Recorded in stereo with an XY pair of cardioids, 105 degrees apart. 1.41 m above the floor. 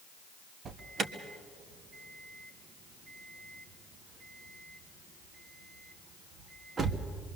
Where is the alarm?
50° right, 1.5 m.